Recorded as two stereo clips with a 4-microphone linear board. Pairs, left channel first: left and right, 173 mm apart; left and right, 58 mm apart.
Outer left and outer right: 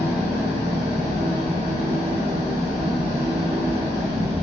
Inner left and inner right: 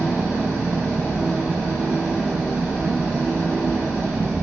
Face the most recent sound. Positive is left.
turn(degrees=-30)  # may be behind; listen again after turning